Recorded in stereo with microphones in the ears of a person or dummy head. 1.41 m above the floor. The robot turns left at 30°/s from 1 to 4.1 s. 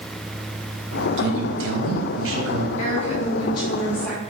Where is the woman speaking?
50° left, 2 m; by 4.2 s 10° left, 2 m.